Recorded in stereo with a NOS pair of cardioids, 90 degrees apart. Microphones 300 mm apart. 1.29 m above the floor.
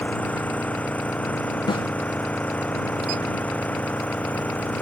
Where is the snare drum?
15° left.